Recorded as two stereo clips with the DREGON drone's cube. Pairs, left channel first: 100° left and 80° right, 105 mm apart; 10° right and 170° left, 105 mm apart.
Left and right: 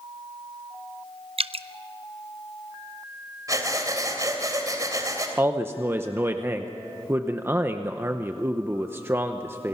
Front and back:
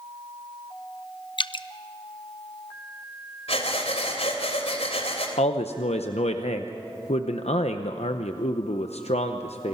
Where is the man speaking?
10° right, 0.7 m.